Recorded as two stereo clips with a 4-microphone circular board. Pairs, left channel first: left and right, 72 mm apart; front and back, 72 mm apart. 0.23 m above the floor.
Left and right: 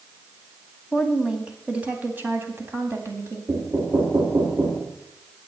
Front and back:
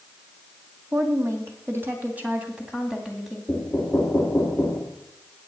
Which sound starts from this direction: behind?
A woman speaking, at 0.9 s.